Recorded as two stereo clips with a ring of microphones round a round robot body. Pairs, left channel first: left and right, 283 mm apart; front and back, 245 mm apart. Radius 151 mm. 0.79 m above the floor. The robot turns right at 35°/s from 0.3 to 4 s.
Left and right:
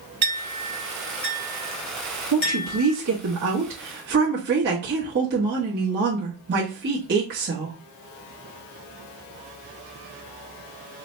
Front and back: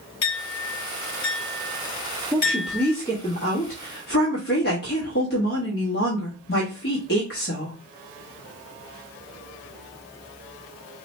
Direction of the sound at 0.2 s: 30° right.